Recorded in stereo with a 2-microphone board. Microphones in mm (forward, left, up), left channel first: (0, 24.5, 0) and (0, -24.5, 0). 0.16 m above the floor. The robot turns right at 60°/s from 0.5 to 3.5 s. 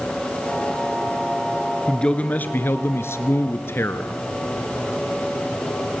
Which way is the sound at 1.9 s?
15° left.